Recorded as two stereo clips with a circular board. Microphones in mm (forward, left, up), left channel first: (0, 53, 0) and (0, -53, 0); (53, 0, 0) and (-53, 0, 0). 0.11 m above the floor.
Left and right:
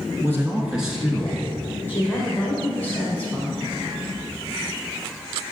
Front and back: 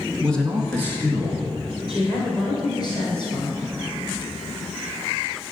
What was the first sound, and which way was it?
A man speaking, 75° right.